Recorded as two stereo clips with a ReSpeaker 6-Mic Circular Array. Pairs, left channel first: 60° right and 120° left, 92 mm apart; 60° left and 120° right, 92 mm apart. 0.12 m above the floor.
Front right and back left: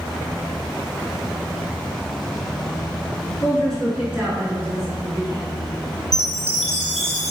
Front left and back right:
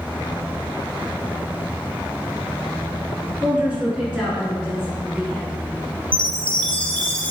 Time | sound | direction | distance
3.4 | a woman speaking | 80° right | 1.2 m
6.1 | a chime | 20° left | 1.0 m